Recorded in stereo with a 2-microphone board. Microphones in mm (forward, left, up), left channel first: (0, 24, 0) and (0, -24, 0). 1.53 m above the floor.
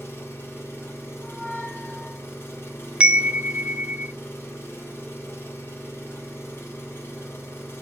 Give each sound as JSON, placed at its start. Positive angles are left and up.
{"t": 0.0, "sound": "an engine running", "side_deg": 60, "distance_m": 2.5}
{"t": 1.2, "sound": "a squeak", "side_deg": 35, "distance_m": 1.7}
{"t": 3.0, "sound": "a chime", "side_deg": -20, "distance_m": 0.5}